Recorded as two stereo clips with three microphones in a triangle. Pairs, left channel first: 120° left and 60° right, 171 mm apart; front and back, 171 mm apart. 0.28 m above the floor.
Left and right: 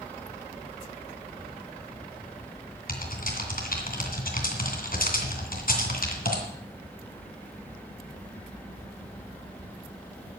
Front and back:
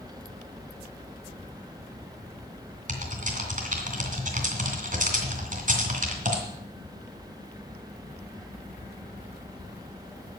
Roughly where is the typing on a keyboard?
Behind left.